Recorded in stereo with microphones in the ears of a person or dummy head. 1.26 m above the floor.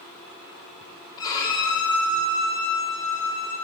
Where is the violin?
20° left (ahead or behind), 3 m.